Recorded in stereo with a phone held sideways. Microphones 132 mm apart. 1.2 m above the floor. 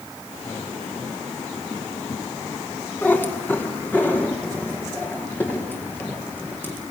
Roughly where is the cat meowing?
Centre.